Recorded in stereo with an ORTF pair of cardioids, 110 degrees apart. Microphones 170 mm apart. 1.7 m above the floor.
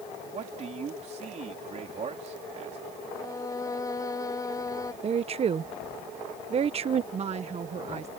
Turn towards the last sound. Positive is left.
turn(degrees=-40)